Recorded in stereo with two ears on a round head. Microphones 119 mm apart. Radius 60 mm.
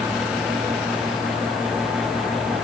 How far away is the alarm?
I don't hear an alarm.